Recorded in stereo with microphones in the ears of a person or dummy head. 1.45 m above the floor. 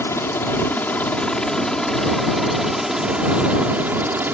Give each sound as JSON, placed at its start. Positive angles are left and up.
{"t": 0.0, "sound": "a helicopter", "side_deg": 10}